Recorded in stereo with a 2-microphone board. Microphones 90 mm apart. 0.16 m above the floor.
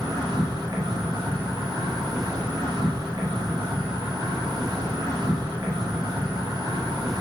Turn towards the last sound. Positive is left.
turn(degrees=-45)  # may be behind; listen again after turning